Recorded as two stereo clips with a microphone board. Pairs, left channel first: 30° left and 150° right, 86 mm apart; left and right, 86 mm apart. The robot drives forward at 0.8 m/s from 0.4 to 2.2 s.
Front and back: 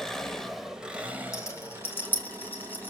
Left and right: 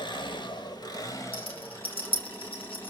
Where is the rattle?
85° left, 2.5 m; by 2.9 s 100° left, 2.5 m.